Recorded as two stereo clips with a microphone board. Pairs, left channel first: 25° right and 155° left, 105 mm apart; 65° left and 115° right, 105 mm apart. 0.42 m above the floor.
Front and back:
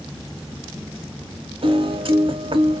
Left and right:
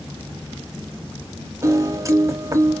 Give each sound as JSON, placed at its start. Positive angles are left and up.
{"t": 1.6, "sound": "a piano", "azimuth_deg": -170, "distance_m": 0.7}